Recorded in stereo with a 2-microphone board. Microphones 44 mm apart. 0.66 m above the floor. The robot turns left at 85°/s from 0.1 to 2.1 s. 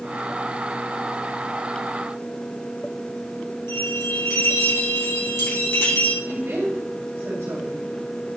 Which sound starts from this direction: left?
A bell, at 3.7 s.